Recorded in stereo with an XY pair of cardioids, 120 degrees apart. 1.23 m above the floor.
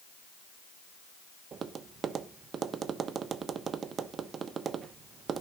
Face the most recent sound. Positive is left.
turn(degrees=-45)